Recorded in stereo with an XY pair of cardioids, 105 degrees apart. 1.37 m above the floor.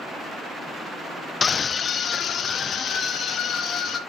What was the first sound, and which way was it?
A scream, 35° left.